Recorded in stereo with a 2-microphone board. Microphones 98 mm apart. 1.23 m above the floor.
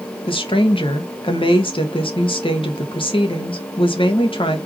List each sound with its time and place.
0.3 s a woman speaking: 65° left (ahead or behind), 1.3 m